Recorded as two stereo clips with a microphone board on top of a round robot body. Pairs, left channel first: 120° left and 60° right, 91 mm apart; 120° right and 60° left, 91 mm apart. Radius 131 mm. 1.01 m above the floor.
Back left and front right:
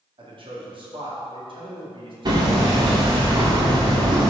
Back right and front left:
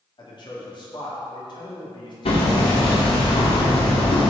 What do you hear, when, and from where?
0.2 s a man speaking: 85° right, 2.5 m
2.2 s hammering: 105° right, 2.0 m